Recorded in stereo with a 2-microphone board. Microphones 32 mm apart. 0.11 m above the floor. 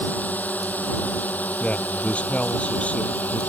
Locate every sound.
0.0 s a drone: 70° left (ahead or behind); by 3.5 s 65° left (ahead or behind)
1.6 s a man speaking: 45° left (ahead or behind)